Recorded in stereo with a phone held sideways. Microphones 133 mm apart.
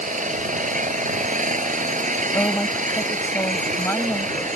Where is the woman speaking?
20° left (ahead or behind).